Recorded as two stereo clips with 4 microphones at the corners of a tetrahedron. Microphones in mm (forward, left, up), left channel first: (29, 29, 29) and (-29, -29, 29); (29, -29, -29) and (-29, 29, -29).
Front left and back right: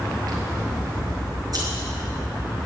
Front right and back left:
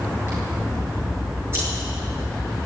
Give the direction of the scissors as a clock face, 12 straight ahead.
6 o'clock.